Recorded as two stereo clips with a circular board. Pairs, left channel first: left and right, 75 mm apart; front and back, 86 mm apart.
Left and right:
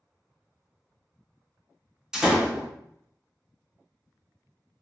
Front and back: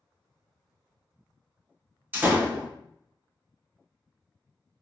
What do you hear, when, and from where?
2.1 s a door slam: 155° right, 0.7 m